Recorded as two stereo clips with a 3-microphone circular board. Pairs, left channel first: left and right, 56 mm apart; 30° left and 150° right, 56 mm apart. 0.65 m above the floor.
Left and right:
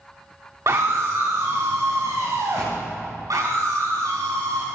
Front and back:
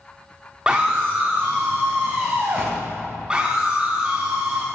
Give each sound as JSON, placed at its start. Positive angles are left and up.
{"t": 0.7, "sound": "a scream", "azimuth_deg": -80, "distance_m": 1.2}
{"t": 3.3, "sound": "a scream", "azimuth_deg": -75, "distance_m": 6.0}